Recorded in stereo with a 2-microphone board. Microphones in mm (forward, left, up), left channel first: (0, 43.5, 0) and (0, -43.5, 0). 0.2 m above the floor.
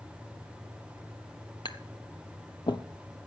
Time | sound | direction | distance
1.6 | tapping | 60° left (ahead or behind) | 0.9 m